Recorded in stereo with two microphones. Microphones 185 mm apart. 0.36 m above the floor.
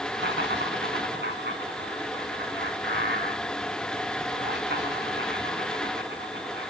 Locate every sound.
0.1 s laughter: 75° right (ahead or behind), 3.5 m